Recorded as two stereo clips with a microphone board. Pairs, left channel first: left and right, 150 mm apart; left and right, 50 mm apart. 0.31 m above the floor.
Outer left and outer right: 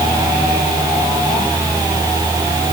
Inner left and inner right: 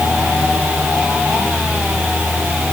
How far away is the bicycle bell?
I don't hear a bicycle bell.